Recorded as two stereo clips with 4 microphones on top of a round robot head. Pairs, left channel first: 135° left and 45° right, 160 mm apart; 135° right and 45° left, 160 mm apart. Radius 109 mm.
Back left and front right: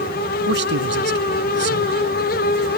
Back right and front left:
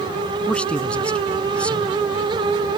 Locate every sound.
0.5 s a man speaking: 50° right